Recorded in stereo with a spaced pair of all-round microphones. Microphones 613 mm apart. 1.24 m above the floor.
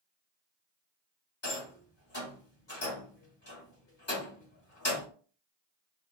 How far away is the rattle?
About 1.4 m.